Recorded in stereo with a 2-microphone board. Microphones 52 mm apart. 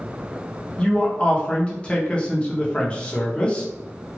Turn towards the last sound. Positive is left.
turn(degrees=20)  # may be behind; listen again after turning